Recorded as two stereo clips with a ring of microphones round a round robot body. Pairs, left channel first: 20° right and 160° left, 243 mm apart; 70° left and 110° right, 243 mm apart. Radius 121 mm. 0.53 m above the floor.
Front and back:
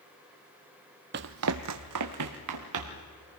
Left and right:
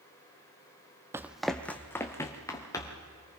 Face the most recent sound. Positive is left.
turn(degrees=145)